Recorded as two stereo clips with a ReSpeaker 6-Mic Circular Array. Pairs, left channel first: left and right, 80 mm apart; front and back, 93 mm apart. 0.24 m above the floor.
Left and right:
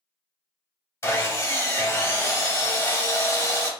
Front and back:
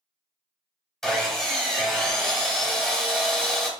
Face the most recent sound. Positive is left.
turn(degrees=85)